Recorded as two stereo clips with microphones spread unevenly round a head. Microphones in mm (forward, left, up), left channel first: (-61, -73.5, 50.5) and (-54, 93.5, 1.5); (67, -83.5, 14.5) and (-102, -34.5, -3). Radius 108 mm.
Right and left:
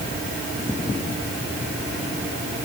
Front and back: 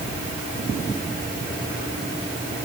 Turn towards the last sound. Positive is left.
No sound to turn to.